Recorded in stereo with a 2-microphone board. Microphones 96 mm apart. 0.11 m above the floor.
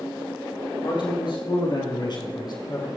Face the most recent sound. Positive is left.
turn(degrees=45)  # may be behind; listen again after turning